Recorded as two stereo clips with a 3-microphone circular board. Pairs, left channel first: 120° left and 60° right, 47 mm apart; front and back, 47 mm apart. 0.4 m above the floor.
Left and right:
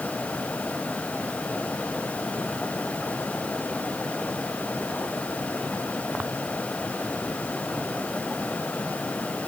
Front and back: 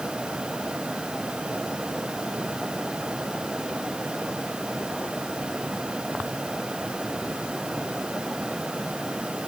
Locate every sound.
Only background noise.